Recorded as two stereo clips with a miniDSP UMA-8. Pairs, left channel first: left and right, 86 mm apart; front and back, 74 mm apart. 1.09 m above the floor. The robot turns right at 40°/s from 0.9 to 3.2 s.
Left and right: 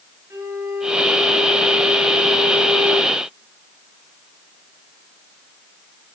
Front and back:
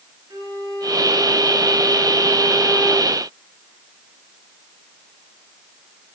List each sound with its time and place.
0.3 s a violin: 150° right, 8.5 m; by 3.1 s 60° right, 8.5 m